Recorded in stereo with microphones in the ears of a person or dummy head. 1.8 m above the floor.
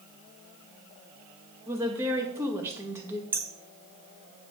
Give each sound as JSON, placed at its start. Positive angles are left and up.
{"t": 1.7, "sound": "a woman speaking", "side_deg": -20, "distance_m": 2.0}
{"t": 3.3, "sound": "hammering", "side_deg": -10, "distance_m": 0.8}